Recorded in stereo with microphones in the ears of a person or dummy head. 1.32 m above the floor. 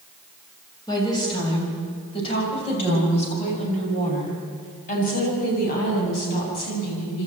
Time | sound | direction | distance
0.9 | a woman speaking | 20° left (ahead or behind) | 6.5 m